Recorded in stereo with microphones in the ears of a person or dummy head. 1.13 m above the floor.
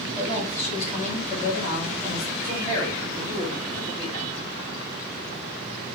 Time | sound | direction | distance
0.1 | a woman speaking | 40° left (ahead or behind) | 2.5 m
2.4 | a man speaking | 45° left (ahead or behind) | 2.5 m